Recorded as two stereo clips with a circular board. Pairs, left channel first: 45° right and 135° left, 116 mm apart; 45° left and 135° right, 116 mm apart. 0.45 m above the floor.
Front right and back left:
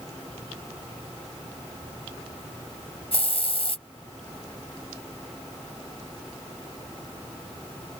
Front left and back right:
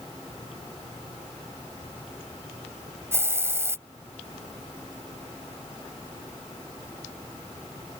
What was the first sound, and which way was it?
A hiss, 70° right.